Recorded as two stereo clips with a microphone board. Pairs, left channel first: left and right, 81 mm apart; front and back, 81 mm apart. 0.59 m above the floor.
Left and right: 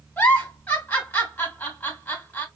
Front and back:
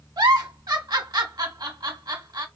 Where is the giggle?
155° left, 1.2 m.